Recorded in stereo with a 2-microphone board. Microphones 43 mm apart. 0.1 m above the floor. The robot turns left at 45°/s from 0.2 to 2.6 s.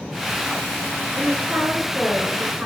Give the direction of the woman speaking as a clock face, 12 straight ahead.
4 o'clock.